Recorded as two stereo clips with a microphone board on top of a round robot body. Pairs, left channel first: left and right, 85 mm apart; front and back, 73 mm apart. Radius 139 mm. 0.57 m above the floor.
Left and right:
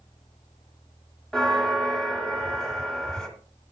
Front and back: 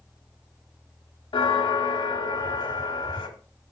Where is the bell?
5° left, 1.1 m.